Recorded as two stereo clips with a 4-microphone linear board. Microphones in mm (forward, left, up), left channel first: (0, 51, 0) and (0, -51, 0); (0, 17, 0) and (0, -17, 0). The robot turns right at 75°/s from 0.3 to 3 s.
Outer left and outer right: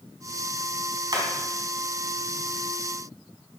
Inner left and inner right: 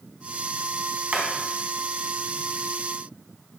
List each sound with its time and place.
1.1 s hammering: 45° right (ahead or behind), 3.5 m; by 1.3 s 55° right (ahead or behind), 3.5 m